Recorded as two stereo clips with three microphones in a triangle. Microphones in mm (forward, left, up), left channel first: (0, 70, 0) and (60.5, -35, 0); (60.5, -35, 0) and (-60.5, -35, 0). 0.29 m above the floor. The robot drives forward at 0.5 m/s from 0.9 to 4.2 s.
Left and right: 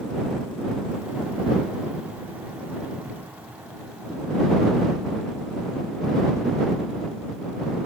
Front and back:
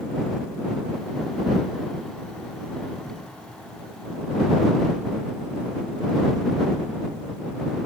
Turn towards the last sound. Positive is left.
turn(degrees=-125)